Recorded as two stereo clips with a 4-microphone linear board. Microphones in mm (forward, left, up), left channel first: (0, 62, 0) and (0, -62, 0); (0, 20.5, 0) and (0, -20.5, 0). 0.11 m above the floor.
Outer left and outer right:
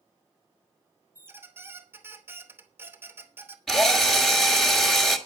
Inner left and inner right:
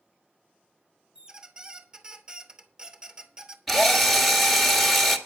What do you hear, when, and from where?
1.1 s a squeak: 20° right (ahead or behind), 0.9 m
3.7 s a drill: 5° left (ahead or behind), 1.4 m